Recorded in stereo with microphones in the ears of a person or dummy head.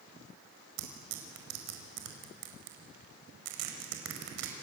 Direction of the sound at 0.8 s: 85° right.